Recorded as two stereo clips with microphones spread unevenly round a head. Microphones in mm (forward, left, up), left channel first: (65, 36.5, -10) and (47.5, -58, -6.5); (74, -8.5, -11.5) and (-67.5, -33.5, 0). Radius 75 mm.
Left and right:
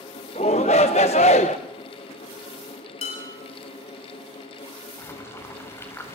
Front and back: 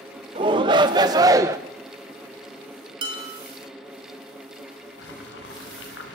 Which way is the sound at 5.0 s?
15° left.